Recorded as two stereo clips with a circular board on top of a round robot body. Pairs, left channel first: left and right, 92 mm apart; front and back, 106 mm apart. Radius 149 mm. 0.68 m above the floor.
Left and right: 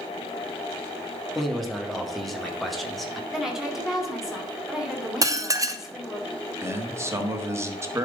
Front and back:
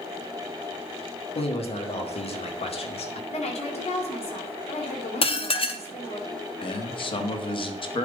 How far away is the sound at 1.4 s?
About 1.9 m.